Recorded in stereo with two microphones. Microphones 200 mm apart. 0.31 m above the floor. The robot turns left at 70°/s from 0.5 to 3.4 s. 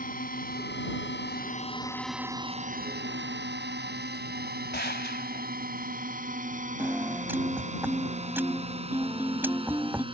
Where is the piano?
10° right (ahead or behind).